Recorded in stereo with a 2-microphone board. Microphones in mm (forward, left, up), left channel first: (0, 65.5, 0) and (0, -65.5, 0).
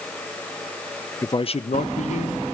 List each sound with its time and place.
1.2 s a man speaking: 20° left (ahead or behind), 0.5 m; by 2.4 s 75° left (ahead or behind), 1.6 m